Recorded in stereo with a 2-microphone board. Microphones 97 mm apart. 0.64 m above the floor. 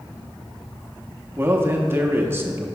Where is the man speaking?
25° right (ahead or behind), 0.6 m.